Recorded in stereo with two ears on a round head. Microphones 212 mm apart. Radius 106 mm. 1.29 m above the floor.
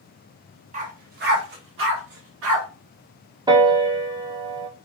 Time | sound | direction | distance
0.7 | a dog barking | 30° right (ahead or behind) | 0.8 m
3.5 | a piano | 15° right (ahead or behind) | 0.6 m